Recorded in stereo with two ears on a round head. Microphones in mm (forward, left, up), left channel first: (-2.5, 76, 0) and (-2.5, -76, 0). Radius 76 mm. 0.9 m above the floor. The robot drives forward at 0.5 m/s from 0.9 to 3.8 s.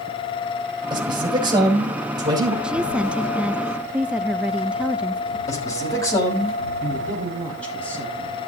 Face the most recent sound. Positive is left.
turn(degrees=5)  # may be behind; listen again after turning